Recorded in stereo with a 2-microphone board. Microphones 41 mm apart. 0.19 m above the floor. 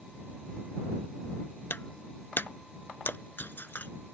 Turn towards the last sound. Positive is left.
turn(degrees=55)  # may be behind; listen again after turning